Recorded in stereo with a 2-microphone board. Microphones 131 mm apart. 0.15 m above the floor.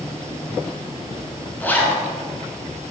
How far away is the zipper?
About 2 m.